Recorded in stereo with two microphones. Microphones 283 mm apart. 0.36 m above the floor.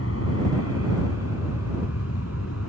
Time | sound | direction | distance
0.0 | an aircraft | 55° left (ahead or behind) | ?